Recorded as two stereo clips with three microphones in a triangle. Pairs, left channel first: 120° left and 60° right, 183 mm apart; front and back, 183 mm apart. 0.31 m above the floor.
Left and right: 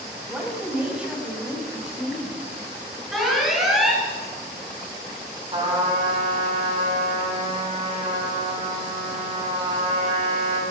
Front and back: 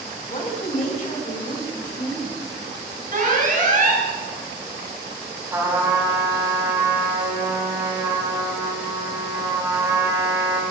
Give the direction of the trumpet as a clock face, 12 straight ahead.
4 o'clock.